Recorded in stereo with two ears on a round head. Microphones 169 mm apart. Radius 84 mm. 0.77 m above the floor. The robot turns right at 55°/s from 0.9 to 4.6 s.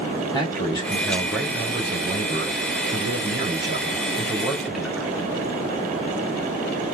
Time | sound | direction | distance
0.3 | a man speaking | 155° left | 1.9 m